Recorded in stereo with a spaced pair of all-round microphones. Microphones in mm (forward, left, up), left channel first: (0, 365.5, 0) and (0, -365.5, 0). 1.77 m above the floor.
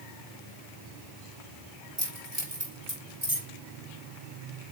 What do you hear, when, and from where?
2.0 s keys jangling: 55° right (ahead or behind), 2.5 m; by 3.5 s 35° right (ahead or behind), 4 m